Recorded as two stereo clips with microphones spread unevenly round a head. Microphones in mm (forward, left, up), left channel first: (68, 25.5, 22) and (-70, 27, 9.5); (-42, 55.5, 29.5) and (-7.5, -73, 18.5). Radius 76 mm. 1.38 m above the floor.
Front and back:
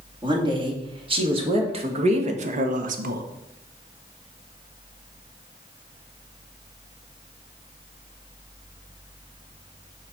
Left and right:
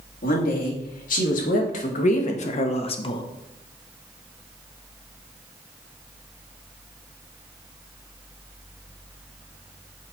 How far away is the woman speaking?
About 2.5 m.